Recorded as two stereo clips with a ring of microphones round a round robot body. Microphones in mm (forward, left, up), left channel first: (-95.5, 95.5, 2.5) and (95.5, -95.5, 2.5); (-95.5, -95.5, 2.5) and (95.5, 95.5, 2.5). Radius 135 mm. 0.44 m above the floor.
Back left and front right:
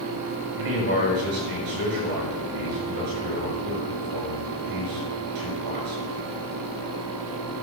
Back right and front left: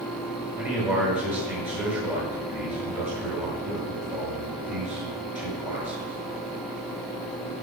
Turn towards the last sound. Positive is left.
turn(degrees=-40)